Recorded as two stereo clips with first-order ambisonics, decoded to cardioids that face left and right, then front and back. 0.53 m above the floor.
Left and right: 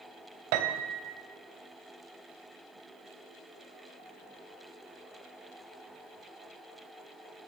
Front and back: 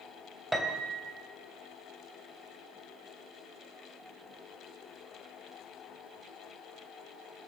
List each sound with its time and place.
0.5 s a piano: 90° right, 2 m